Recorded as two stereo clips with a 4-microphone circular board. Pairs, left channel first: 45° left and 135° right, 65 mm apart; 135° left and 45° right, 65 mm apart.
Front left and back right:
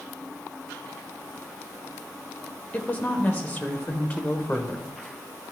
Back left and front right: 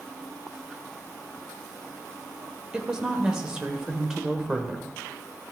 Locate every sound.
2.7 s a woman speaking: 20° left, 0.8 m